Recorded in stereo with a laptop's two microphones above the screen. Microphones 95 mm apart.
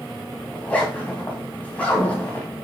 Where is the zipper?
15° left (ahead or behind), 3 m.